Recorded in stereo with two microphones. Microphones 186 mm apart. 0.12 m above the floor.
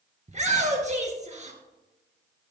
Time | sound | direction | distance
0.3 | a shout | 40° right (ahead or behind) | 2.0 m